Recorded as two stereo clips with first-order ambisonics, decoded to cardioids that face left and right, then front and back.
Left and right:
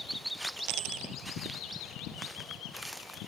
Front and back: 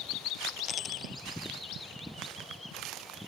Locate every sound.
0.7 s a dropped coin: 65° right